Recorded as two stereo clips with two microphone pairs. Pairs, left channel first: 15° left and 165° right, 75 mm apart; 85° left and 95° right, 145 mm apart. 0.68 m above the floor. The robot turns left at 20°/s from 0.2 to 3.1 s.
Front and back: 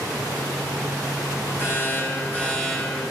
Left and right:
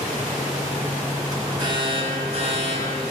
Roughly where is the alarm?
Ahead right.